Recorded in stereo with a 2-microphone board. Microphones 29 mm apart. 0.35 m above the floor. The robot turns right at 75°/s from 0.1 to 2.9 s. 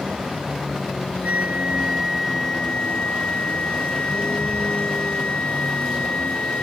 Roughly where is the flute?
Right.